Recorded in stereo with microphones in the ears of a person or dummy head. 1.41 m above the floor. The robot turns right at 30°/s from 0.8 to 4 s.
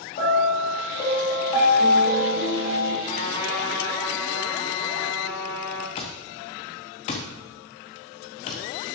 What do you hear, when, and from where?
0.2 s a piano: 135° left, 2.5 m; by 3.0 s 160° right, 2.5 m
3.0 s a trumpet: 45° left (ahead or behind), 3 m; by 5.9 s 15° left (ahead or behind), 3 m
6.0 s an alarm clock: 25° left (ahead or behind), 0.9 m